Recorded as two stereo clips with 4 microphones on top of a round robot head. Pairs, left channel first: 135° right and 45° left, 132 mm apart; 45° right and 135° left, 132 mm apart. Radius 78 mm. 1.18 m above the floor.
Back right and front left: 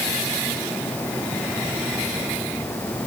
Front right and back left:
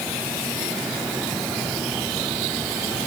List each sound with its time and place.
Only background noise.